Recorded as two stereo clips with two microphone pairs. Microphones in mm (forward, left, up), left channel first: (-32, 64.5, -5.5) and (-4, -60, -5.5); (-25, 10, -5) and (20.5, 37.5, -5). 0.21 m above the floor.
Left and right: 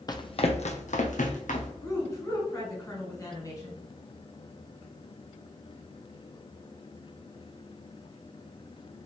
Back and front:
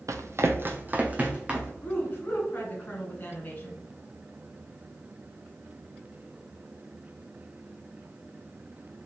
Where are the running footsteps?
45° left, 0.5 m; by 1.7 s 105° left, 1.1 m.